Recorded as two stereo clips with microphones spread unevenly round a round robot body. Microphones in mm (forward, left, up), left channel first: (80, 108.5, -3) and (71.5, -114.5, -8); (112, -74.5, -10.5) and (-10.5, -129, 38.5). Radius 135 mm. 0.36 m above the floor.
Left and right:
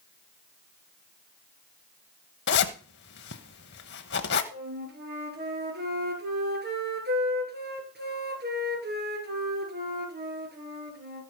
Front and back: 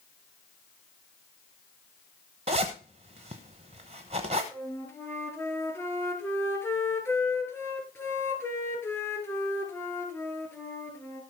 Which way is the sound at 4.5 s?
50° right.